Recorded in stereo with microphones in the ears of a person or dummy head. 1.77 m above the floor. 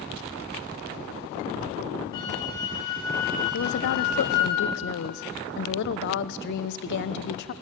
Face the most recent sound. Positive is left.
turn(degrees=65)  # may be behind; listen again after turning